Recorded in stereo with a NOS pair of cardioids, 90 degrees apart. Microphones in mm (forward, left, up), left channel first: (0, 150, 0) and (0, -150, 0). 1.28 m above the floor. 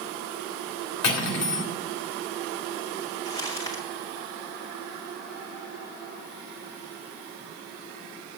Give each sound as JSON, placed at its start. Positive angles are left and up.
{"t": 1.0, "sound": "cutlery clinking", "azimuth_deg": 65, "distance_m": 2.5}
{"t": 3.2, "sound": "crumpling", "azimuth_deg": 10, "distance_m": 2.0}